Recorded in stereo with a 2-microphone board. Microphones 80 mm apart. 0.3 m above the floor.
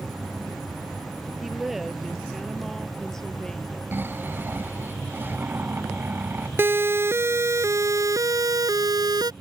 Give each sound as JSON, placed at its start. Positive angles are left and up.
{"t": 1.4, "sound": "a woman speaking", "side_deg": -5}
{"t": 3.9, "sound": "snoring", "side_deg": -25}
{"t": 6.6, "sound": "a siren", "side_deg": -30}